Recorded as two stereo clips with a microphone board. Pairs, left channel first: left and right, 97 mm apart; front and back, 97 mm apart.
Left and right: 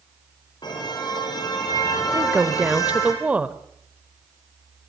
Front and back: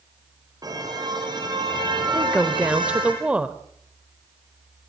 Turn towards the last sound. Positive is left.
turn(degrees=-130)